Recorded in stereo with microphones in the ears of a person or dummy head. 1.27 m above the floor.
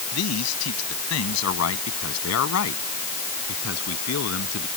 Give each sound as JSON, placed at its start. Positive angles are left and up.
{"t": 0.1, "sound": "a man speaking", "side_deg": 90}